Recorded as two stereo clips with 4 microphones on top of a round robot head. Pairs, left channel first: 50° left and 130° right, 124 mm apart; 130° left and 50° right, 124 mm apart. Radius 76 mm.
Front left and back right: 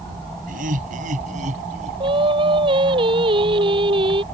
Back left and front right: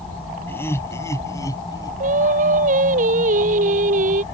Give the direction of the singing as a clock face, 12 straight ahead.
3 o'clock.